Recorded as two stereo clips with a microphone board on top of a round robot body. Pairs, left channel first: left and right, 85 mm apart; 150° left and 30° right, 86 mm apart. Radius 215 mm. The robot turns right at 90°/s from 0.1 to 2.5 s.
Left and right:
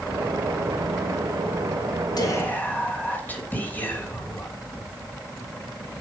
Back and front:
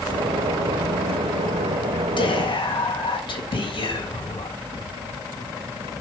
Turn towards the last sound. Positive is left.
turn(degrees=160)